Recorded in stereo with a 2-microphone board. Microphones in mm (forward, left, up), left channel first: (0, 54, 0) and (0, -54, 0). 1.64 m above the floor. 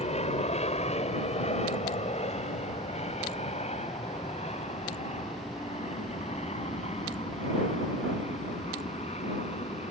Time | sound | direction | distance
0.0 | an aircraft | 75° left (ahead or behind) | ?